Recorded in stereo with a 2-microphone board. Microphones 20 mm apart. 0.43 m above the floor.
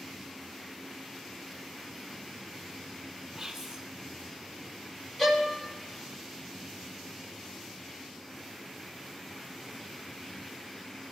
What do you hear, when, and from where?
3.4 s whispering: 10° right (ahead or behind), 3 m
5.2 s a violin: 15° left (ahead or behind), 1.6 m